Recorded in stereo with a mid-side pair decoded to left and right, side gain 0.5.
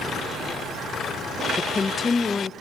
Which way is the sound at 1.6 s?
30° left.